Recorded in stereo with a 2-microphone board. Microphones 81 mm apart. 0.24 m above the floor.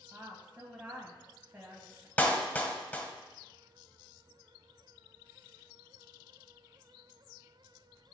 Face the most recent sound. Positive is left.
turn(degrees=20)  # may be behind; listen again after turning